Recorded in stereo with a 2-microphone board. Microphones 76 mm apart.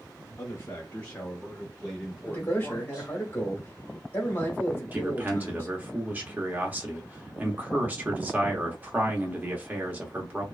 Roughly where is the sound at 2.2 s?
Left.